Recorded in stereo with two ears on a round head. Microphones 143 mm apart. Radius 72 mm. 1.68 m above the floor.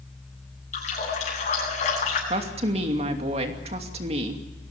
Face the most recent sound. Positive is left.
turn(degrees=-40)  # may be behind; listen again after turning